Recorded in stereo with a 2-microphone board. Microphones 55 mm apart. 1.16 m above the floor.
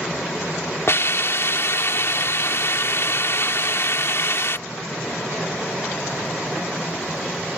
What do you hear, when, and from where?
0.9 s a hiss: 55° left (ahead or behind)